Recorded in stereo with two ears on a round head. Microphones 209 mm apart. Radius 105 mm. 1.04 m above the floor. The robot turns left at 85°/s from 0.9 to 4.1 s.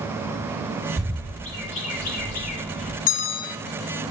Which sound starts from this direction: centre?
A bird, at 1.0 s.